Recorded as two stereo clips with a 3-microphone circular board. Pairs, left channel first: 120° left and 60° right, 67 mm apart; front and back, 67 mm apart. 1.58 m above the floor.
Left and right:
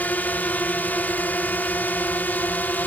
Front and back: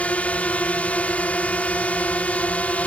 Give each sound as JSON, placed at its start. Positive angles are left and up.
{"t": 0.0, "sound": "a drone", "azimuth_deg": 65}